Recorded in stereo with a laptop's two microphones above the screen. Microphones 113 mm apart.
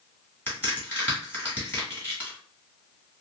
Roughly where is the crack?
Centre.